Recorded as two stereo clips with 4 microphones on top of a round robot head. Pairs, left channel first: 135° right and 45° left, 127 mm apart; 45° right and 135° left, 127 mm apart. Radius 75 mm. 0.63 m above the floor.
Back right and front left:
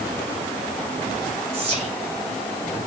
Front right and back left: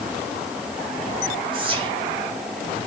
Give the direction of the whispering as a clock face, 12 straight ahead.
9 o'clock.